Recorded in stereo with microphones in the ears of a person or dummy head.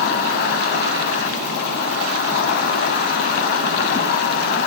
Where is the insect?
60° left (ahead or behind), 1.1 m.